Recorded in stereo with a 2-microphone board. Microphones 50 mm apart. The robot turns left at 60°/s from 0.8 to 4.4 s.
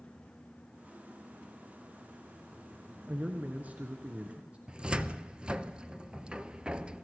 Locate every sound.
3.1 s a man speaking: 50° right, 1.6 m; by 4.6 s 130° right, 1.6 m
4.7 s a cupboard door: 20° right (ahead or behind), 0.7 m